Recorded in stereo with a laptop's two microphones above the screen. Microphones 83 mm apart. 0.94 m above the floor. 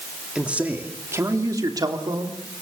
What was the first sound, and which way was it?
A man speaking, 10° right (ahead or behind).